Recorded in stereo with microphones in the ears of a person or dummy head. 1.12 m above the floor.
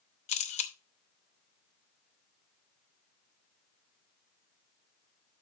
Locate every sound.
0.3 s a camera shutter: 35° left (ahead or behind), 0.8 m